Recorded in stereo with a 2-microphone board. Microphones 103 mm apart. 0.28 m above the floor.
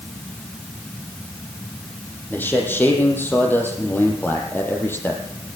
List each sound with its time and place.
2.3 s a man speaking: 20° left (ahead or behind), 8.5 m